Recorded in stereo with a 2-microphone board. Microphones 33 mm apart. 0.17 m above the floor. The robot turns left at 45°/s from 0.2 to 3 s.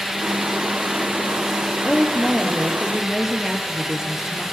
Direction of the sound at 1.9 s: 40° left.